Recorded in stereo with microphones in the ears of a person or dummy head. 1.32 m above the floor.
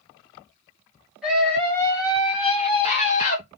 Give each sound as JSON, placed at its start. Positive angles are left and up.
{"t": 1.2, "sound": "a scream", "side_deg": 0, "distance_m": 1.1}